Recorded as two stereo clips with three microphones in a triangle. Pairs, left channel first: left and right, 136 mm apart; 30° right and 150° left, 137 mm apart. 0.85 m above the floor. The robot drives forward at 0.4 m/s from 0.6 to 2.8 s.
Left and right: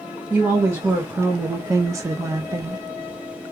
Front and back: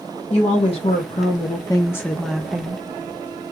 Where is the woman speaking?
20° right, 0.8 m; by 2.8 s 145° right, 0.6 m.